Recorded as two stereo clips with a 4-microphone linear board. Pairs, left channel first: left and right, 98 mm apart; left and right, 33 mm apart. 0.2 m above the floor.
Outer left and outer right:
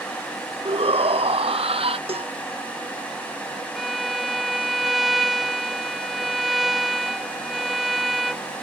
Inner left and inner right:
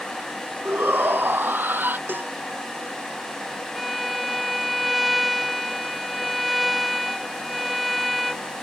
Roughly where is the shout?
Right.